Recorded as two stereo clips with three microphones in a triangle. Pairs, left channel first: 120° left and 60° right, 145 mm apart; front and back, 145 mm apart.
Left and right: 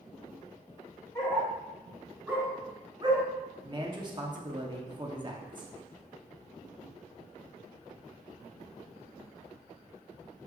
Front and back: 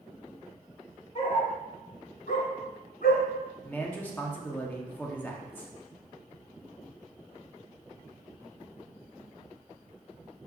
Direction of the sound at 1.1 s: 45° left.